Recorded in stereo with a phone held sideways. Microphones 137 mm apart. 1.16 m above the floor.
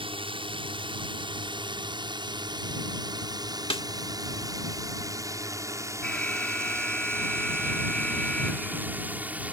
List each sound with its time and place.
0.0 s a drone: 40° right (ahead or behind); by 9.5 s 10° right (ahead or behind)
3.7 s a snare drum: 45° left (ahead or behind)
6.0 s an alarm: 10° left (ahead or behind)